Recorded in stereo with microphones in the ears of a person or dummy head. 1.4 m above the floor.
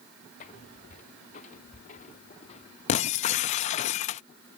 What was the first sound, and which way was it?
Footsteps, 45° left (ahead or behind).